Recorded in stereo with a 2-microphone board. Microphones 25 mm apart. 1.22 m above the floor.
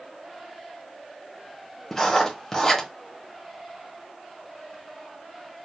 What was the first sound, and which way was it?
Writing, 20° left (ahead or behind).